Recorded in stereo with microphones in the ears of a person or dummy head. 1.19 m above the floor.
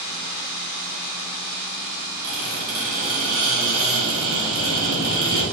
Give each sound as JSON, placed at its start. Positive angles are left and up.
{"t": 2.2, "sound": "a squeak", "side_deg": -60, "distance_m": 1.5}